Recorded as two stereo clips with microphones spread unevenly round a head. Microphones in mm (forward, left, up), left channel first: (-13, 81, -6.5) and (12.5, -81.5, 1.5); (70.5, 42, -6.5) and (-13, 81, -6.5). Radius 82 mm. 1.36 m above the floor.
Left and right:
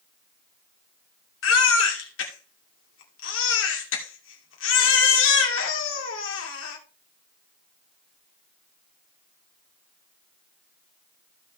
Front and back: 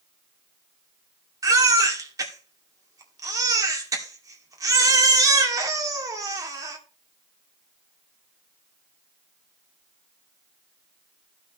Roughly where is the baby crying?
Left.